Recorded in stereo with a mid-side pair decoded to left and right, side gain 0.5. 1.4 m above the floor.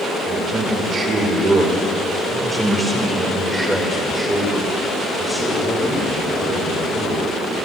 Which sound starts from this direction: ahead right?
A man speaking, at 0.3 s.